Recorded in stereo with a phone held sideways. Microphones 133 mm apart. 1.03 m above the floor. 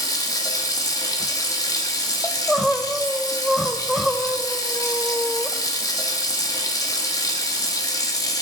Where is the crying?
Centre (ahead or behind), 0.8 m.